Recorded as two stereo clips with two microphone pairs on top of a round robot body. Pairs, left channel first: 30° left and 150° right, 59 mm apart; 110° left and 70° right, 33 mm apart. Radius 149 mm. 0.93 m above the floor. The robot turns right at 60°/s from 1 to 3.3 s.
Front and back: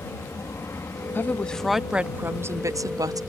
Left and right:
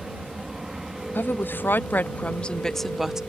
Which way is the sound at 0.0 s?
5° right.